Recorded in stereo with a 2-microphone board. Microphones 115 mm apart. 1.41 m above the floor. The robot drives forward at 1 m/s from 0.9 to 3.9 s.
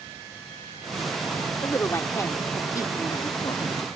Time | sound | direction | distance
1.6 | a woman speaking | 20° left (ahead or behind) | ?